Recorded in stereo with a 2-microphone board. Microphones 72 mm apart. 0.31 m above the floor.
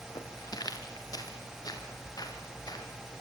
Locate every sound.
0.1 s footsteps: 60° left (ahead or behind), 4.5 m; by 2.9 s 55° left (ahead or behind), 6 m